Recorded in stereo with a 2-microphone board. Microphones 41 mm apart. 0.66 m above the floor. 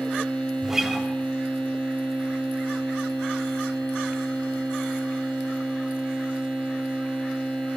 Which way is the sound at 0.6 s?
10° right (ahead or behind).